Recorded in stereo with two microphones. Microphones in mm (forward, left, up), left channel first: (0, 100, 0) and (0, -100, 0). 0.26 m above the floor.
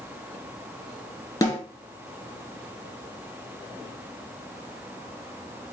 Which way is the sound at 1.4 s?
15° left (ahead or behind).